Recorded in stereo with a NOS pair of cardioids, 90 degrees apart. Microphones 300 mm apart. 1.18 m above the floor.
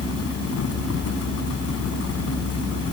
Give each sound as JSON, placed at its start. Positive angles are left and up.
{"t": 0.0, "sound": "a fan", "azimuth_deg": 55}